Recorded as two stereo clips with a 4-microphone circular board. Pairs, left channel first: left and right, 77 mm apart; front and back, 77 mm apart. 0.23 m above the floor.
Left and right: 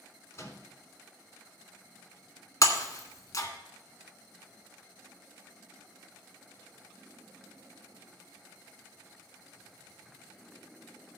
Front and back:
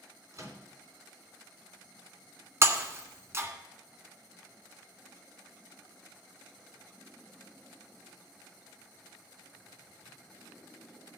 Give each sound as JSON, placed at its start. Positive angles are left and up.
{"t": 0.3, "sound": "a microwave", "azimuth_deg": 140, "distance_m": 2.5}
{"t": 2.6, "sound": "breaking glass", "azimuth_deg": 130, "distance_m": 1.5}